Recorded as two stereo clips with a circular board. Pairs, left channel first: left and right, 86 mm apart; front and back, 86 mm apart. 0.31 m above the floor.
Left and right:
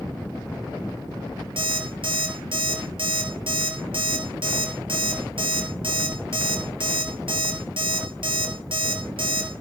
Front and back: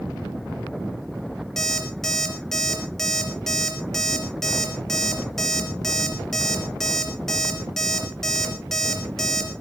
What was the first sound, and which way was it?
An alarm clock, 85° right.